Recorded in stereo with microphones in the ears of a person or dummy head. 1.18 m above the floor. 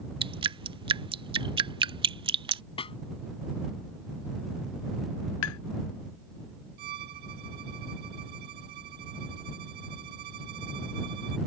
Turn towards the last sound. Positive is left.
turn(degrees=-45)  # may be behind; listen again after turning